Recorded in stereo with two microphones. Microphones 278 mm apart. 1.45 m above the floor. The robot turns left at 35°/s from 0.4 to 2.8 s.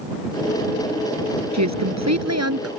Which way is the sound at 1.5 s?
80° right.